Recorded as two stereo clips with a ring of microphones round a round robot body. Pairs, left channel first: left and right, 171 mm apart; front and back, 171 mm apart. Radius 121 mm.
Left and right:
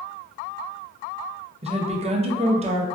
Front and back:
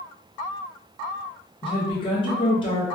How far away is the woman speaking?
About 0.5 m.